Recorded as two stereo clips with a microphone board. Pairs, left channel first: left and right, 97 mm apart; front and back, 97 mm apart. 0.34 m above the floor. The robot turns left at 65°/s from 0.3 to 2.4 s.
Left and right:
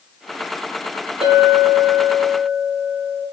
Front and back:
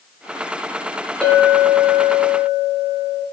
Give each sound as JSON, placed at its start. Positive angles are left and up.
{"t": 1.2, "sound": "a clink", "azimuth_deg": -80, "distance_m": 3.5}